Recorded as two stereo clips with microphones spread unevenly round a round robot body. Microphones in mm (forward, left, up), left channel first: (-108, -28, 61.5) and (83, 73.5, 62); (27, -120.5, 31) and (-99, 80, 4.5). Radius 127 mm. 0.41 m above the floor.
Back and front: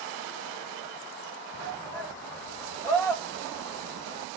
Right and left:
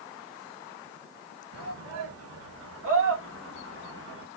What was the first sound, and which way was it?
A shout, 125° left.